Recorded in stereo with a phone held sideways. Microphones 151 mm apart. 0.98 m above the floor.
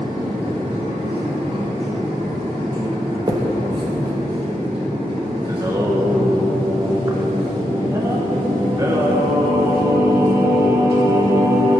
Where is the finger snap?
25° right (ahead or behind), 0.9 m.